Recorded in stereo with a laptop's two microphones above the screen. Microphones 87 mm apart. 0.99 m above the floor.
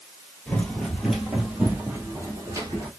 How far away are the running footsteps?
About 1.2 m.